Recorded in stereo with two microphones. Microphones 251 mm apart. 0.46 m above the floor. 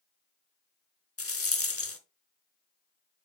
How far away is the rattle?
About 0.9 m.